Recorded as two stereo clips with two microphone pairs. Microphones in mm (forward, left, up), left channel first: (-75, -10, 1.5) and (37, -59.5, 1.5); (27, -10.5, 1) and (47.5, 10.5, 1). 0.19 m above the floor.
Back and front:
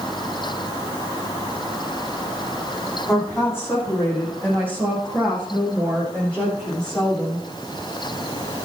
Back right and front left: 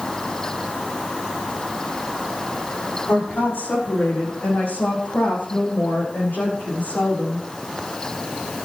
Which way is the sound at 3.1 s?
135° right.